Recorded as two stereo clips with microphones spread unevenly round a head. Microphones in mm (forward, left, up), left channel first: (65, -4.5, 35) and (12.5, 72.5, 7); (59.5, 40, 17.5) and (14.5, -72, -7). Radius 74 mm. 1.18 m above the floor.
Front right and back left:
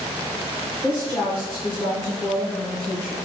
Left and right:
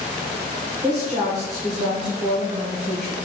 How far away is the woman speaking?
About 1.2 m.